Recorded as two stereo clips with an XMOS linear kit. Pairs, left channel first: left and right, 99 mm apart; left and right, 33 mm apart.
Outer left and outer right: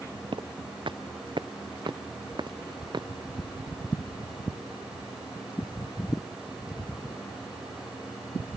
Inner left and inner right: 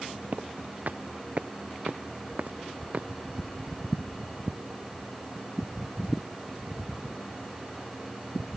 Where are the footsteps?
55° right (ahead or behind); by 3.1 s 50° right (ahead or behind).